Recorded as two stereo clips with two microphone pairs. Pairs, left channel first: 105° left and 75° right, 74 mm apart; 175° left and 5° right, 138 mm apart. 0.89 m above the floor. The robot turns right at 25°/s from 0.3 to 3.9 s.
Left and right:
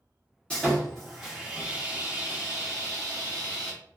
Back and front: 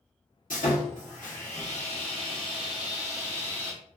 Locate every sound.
0.5 s sawing: straight behind, 1.1 m; by 3.7 s 100° right, 1.1 m